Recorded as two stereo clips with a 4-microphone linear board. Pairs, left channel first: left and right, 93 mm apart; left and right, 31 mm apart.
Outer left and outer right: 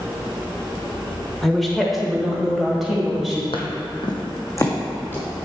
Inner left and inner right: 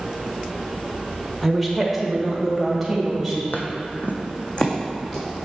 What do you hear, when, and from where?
1.4 s a woman speaking: centre (ahead or behind), 0.9 m; by 3.4 s 5° right (ahead or behind), 2 m
3.5 s footsteps: 70° left (ahead or behind), 1.1 m; by 5.3 s 20° left (ahead or behind), 2.5 m